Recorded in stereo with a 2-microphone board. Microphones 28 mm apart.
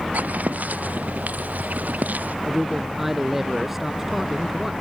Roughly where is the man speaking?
Centre.